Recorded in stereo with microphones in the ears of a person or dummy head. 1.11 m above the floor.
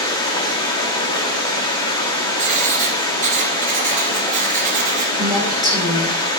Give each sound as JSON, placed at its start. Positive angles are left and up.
{"t": 0.0, "sound": "running water", "side_deg": 25, "distance_m": 1.3}
{"t": 2.4, "sound": "writing", "side_deg": -35, "distance_m": 0.9}
{"t": 5.2, "sound": "a woman speaking", "side_deg": -20, "distance_m": 2.5}